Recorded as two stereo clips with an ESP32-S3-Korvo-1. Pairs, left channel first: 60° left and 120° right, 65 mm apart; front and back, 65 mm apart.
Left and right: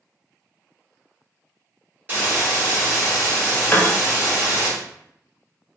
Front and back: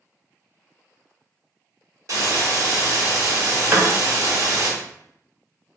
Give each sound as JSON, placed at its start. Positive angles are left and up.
{"t": 2.1, "sound": "a hiss", "azimuth_deg": -175, "distance_m": 1.6}
{"t": 3.7, "sound": "a piano", "azimuth_deg": 125, "distance_m": 0.7}